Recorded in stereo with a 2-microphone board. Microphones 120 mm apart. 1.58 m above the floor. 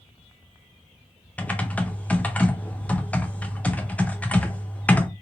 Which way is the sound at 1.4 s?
10° left (ahead or behind).